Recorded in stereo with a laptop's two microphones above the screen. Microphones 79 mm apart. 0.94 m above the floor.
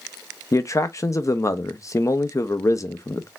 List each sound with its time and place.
0.5 s a man speaking: 45° left (ahead or behind), 0.7 m